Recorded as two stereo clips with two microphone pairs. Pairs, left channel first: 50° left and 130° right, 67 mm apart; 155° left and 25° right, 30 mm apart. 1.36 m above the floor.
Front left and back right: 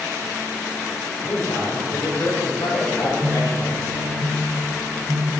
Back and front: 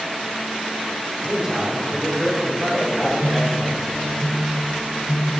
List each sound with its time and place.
1.2 s a man speaking: 45° left, 5.5 m; by 4.0 s 55° left, 6 m
3.0 s a phone buzzing: 145° left, 3.5 m